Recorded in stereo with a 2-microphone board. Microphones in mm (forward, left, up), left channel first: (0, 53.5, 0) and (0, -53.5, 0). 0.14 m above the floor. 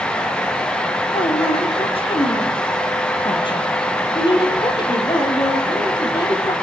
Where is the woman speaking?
60° left (ahead or behind), 3.5 m; by 6.5 s 45° left (ahead or behind), 5.5 m.